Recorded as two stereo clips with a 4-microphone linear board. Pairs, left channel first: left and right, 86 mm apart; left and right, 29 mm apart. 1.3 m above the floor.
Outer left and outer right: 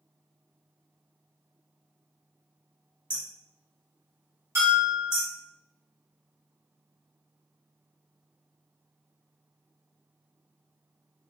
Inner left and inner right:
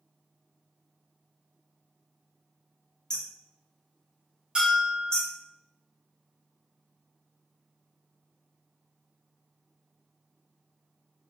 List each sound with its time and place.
3.1 s hammering: 25° left (ahead or behind), 0.9 m
4.5 s a bell: 35° right (ahead or behind), 1.3 m